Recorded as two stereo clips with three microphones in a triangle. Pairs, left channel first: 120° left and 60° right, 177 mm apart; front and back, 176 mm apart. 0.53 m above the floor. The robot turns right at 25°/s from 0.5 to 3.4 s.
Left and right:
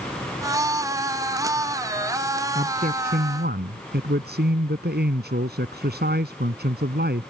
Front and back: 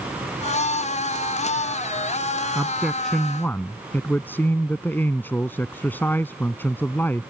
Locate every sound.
2.5 s a man speaking: 100° right; by 7.3 s 80° right